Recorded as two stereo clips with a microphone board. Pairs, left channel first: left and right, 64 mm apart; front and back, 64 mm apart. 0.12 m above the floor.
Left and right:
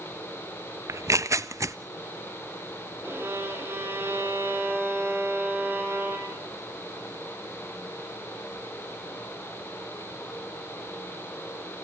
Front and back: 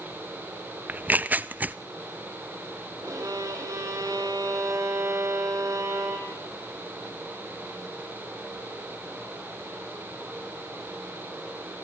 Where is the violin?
145° right, 4 m.